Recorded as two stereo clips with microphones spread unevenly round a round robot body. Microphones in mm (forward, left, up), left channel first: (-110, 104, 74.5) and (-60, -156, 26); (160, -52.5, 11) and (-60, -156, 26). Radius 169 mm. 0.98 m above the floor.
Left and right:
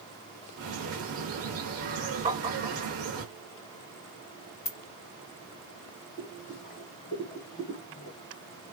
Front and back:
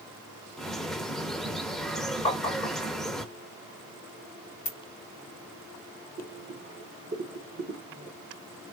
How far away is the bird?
About 0.7 m.